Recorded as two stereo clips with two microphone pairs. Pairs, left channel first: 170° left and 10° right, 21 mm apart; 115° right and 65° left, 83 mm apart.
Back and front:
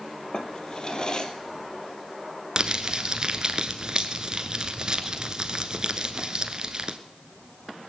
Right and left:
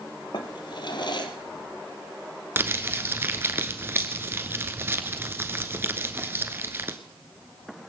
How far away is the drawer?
About 1.5 m.